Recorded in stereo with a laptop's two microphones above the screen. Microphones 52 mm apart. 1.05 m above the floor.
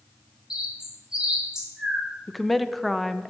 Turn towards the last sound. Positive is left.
turn(degrees=0)  # may be behind; listen again after turning